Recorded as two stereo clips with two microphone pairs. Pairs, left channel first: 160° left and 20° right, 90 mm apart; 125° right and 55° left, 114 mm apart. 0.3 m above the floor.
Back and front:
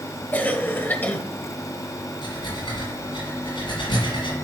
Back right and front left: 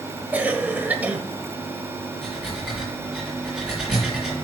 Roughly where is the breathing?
Behind left.